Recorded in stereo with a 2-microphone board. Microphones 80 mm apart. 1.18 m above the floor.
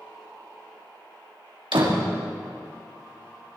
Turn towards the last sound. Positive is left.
turn(degrees=-80)